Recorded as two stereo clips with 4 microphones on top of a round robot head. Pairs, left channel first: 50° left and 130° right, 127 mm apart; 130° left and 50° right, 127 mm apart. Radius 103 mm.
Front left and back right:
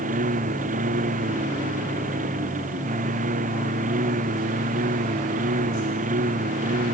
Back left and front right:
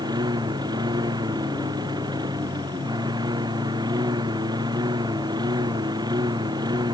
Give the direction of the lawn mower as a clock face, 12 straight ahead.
4 o'clock.